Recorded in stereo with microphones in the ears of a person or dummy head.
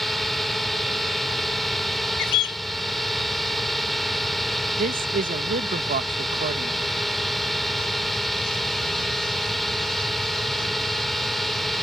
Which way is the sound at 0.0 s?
Centre (ahead or behind).